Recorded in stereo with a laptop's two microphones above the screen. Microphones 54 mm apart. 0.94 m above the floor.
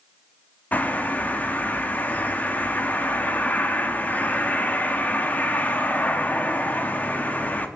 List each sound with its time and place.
0.7 s a bird: 30° left (ahead or behind), 1.6 m